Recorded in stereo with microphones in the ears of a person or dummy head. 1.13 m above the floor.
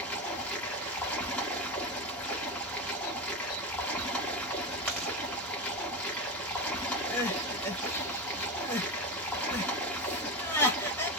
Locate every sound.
0.0 s running water: 10° left (ahead or behind), 1.5 m
4.9 s chewing: 10° left (ahead or behind), 3 m
7.1 s crying: 15° left (ahead or behind), 1.3 m